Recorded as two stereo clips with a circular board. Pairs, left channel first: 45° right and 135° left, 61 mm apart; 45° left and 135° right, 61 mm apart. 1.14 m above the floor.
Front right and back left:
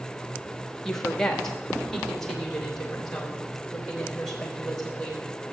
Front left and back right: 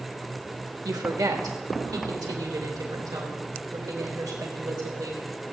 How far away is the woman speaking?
About 1.6 m.